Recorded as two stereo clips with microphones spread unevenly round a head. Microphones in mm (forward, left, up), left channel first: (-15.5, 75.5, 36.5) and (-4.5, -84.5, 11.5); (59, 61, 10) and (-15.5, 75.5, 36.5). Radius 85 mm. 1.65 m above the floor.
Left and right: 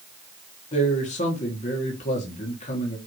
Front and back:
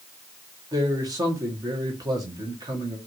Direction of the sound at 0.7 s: 140° left.